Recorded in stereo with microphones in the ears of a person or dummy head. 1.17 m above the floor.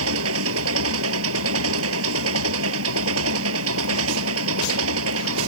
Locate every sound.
0.0 s an engine running: 85° right